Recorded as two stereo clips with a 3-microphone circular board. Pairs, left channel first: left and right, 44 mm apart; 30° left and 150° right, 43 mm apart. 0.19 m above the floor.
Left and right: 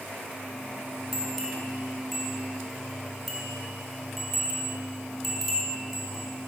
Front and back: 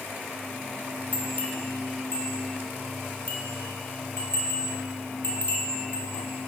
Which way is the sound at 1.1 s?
5° right.